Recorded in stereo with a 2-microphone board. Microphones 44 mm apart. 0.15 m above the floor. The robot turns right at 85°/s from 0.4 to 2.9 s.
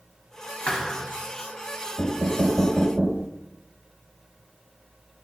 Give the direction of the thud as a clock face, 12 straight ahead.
7 o'clock.